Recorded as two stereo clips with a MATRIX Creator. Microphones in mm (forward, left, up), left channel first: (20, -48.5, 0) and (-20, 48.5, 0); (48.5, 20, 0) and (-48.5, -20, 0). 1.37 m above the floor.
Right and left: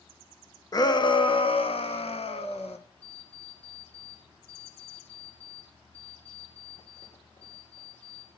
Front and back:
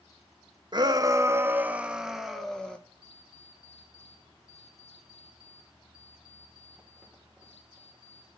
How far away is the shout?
About 1.2 m.